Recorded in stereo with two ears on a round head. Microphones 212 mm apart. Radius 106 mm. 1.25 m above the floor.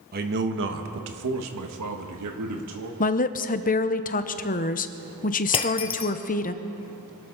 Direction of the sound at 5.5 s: 25° left (ahead or behind).